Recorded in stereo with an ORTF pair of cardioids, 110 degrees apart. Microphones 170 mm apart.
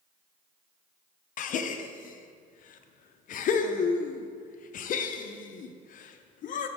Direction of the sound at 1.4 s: 55° left.